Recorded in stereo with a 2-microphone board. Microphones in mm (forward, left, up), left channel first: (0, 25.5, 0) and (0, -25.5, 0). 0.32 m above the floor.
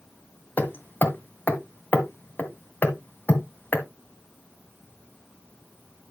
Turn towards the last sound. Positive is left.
turn(degrees=40)  # may be behind; listen again after turning